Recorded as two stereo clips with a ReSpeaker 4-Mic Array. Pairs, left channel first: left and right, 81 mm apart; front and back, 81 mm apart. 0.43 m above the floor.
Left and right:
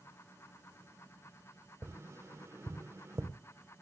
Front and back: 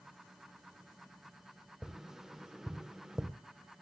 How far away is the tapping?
About 1.0 m.